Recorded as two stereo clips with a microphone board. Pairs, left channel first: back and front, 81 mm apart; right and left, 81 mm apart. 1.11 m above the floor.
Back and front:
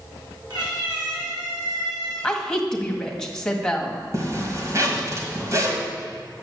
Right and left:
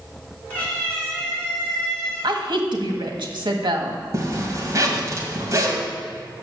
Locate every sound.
0.5 s a cat meowing: 20° right, 4.5 m; by 2.3 s 5° right, 4 m
2.2 s a woman speaking: 95° left, 1.7 m
4.1 s a zipper: 45° left, 2 m